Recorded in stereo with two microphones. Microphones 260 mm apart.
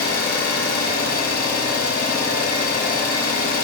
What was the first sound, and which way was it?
An engine running, 80° left.